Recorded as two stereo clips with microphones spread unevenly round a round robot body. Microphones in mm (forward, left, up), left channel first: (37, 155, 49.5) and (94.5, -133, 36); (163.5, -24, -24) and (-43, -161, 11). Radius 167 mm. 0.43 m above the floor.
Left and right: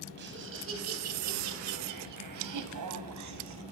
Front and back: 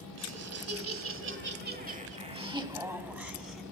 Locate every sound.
0.2 s laughter: 135° right, 4 m; by 3.6 s 55° right, 4.5 m